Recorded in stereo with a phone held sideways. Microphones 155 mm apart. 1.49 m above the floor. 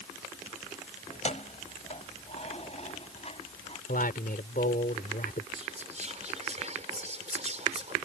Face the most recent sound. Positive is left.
turn(degrees=-45)  # may be behind; listen again after turning